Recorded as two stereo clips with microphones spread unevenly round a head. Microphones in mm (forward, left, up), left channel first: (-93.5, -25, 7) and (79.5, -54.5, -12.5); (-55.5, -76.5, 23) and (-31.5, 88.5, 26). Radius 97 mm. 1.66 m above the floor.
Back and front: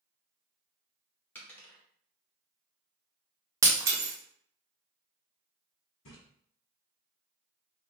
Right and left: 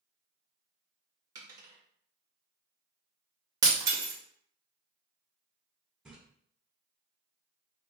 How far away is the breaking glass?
About 0.8 m.